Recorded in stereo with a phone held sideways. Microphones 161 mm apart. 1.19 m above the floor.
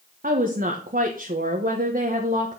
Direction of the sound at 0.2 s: 65° right (ahead or behind).